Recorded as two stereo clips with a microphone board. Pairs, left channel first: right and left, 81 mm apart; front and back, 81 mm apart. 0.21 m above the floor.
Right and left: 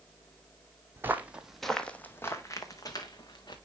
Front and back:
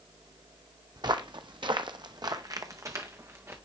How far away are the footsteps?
About 0.8 m.